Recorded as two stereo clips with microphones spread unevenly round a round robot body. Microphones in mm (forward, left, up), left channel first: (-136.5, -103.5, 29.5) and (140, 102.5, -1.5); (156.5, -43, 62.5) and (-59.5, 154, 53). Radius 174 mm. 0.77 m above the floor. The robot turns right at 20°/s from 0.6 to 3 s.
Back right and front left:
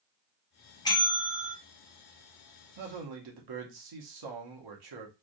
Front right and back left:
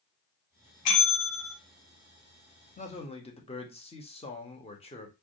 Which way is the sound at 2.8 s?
25° left.